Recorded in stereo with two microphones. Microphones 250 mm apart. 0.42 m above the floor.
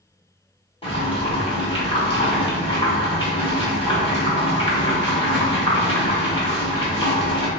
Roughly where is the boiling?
Left.